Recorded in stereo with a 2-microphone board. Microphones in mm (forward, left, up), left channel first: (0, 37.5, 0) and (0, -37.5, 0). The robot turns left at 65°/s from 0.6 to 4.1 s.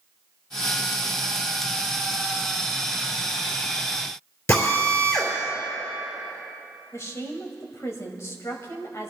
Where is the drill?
40° left (ahead or behind), 3.5 m.